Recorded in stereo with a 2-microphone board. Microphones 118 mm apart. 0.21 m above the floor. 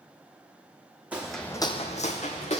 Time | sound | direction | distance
1.1 | footsteps | 10° right (ahead or behind) | 0.8 m